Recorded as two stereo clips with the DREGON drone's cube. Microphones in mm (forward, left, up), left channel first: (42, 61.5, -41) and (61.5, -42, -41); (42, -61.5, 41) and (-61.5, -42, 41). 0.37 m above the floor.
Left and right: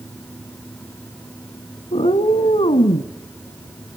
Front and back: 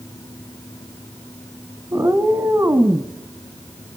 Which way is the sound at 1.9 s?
110° left.